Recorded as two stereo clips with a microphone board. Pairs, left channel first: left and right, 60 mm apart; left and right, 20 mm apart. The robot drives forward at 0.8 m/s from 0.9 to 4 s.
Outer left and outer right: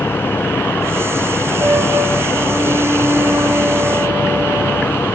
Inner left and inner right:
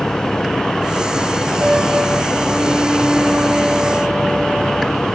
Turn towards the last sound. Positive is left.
turn(degrees=-65)  # may be behind; listen again after turning